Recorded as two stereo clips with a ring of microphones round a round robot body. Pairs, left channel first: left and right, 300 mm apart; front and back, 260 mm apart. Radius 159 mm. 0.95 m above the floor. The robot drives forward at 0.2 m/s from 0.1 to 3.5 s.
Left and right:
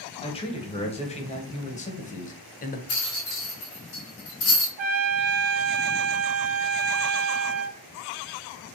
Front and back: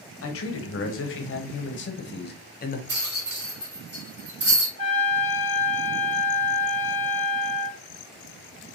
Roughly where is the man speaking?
Ahead.